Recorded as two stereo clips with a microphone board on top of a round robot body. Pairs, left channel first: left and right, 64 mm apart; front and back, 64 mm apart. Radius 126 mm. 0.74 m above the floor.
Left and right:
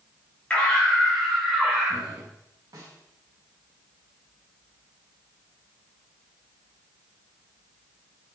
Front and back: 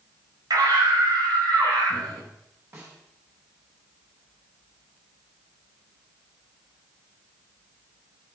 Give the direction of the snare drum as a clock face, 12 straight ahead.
4 o'clock.